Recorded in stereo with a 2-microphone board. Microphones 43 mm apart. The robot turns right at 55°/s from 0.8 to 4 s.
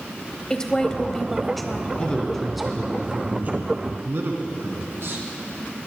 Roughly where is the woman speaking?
Centre.